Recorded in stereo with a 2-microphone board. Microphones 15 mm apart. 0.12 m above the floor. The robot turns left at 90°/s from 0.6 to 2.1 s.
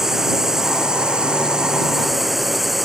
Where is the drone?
25° right; by 2.9 s 160° right.